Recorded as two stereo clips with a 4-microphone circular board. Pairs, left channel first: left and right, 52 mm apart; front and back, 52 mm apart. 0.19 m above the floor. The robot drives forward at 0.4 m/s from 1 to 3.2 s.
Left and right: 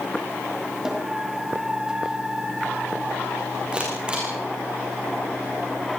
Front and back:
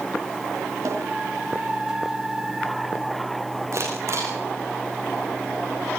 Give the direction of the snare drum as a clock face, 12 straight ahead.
6 o'clock.